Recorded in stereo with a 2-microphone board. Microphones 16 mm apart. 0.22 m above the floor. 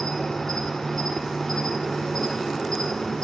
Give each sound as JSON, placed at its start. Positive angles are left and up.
{"t": 0.0, "sound": "an insect", "side_deg": 40, "distance_m": 1.0}